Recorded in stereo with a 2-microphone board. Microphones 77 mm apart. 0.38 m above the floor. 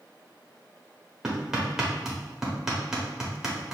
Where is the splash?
I don't hear a splash.